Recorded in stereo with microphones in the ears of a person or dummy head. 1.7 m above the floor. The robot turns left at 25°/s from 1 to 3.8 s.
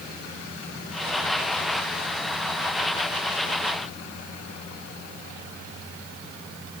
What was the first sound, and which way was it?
Only background noise.